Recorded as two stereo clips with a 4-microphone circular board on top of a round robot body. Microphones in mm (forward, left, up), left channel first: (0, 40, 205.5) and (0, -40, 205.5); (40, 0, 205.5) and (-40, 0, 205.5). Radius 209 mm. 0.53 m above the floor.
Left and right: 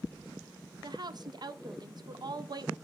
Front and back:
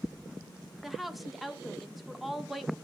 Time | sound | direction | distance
0.8 | a woman speaking | 90° right | 0.9 m